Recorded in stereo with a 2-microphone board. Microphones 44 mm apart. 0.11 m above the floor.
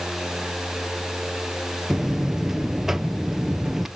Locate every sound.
1.9 s a buzzer: 5° right (ahead or behind), 1.1 m